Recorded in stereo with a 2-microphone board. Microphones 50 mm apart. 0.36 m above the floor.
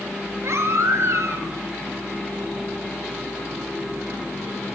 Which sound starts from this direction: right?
A baby crying, at 0.4 s.